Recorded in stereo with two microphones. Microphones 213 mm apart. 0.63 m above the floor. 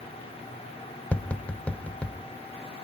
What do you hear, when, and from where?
1.1 s tapping: 5° left (ahead or behind), 1.2 m